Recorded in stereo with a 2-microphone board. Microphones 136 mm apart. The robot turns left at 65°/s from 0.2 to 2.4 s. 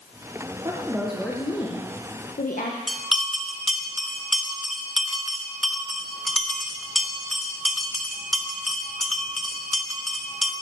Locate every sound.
0.7 s a woman speaking: 150° right, 1.3 m; by 2.8 s 95° left, 1.3 m
2.9 s a bell: centre (ahead or behind), 1.1 m